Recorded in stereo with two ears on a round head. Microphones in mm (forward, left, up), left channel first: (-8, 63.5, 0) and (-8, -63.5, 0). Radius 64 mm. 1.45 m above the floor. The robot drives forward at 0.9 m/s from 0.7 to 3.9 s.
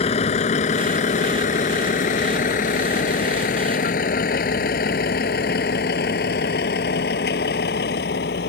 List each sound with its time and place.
0.0 s a vehicle: 50° left (ahead or behind); by 8.5 s 90° left